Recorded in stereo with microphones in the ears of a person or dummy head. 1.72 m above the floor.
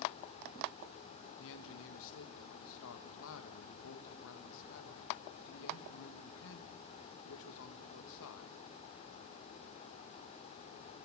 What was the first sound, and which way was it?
A man speaking, 75° left (ahead or behind).